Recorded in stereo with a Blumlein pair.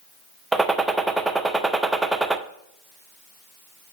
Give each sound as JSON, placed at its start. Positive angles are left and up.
{"t": 0.5, "sound": "a gunshot", "azimuth_deg": -10, "distance_m": 0.5}